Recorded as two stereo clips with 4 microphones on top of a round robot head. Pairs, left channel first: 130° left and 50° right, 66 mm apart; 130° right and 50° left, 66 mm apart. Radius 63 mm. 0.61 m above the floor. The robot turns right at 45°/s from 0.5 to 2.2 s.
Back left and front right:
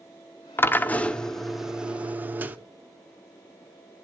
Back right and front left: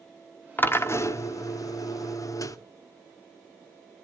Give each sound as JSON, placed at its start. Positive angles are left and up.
{"t": 0.6, "sound": "a drill", "azimuth_deg": 175, "distance_m": 1.1}